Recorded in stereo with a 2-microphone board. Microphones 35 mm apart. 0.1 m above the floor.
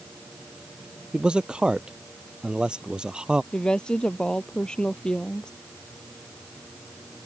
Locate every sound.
1.1 s a man speaking: 25° right (ahead or behind)
3.5 s a woman speaking: 25° left (ahead or behind)